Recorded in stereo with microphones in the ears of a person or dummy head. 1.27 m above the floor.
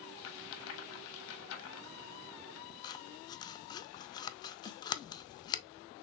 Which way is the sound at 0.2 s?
75° left (ahead or behind).